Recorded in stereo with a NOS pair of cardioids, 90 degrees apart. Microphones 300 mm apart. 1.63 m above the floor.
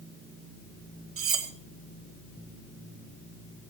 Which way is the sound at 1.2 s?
50° right.